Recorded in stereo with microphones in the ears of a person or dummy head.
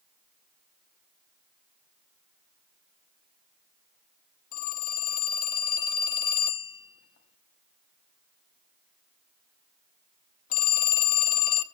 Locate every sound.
4.5 s a phone ringing: 45° left (ahead or behind), 0.9 m